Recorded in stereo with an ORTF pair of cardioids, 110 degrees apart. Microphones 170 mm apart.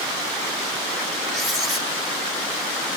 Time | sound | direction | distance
1.3 | writing | straight ahead | 2.5 m